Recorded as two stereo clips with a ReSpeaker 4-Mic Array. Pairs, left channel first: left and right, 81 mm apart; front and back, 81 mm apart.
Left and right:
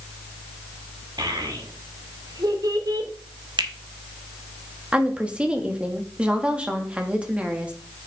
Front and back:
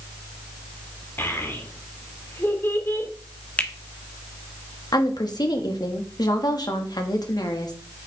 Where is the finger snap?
70° right, 1.1 m.